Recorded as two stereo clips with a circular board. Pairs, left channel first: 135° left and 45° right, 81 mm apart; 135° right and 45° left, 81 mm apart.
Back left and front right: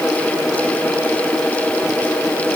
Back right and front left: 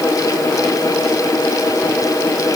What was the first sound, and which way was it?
Only background noise.